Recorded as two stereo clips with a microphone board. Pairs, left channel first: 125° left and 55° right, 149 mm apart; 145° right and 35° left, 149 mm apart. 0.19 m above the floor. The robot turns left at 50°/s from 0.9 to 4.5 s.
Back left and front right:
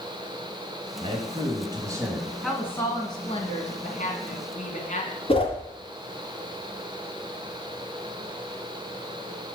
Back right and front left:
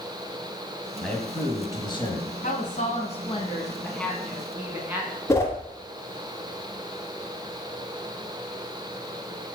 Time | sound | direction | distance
1.0 | a man speaking | 60° right | 1.5 m
2.4 | a woman speaking | 145° right | 1.7 m
5.3 | a whoosh | 150° left | 1.3 m